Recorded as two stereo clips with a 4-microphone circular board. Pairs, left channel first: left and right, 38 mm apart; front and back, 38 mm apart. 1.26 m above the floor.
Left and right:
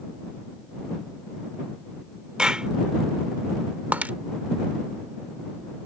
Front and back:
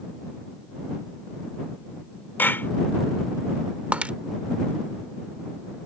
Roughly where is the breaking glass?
Behind right.